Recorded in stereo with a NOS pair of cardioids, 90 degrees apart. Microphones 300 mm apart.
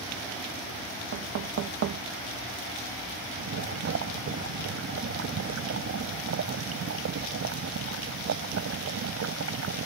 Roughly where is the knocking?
Ahead right.